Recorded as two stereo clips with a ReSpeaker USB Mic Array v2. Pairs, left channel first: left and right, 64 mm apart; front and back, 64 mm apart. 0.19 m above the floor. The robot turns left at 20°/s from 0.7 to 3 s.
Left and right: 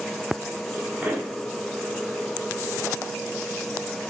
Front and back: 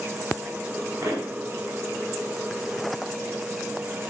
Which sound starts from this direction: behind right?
A pop, at 1.0 s.